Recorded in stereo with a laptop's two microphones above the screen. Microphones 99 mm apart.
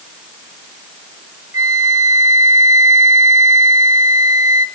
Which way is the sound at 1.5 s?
35° right (ahead or behind).